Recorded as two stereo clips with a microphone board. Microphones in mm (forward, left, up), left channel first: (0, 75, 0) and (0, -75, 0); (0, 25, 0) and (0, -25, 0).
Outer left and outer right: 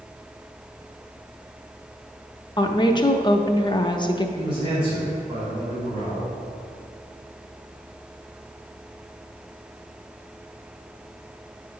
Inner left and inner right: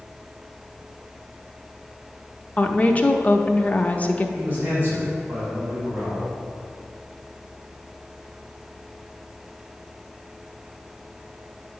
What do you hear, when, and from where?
2.6 s a woman speaking: 30° left (ahead or behind), 0.6 m
4.3 s a man speaking: 40° right (ahead or behind), 2.5 m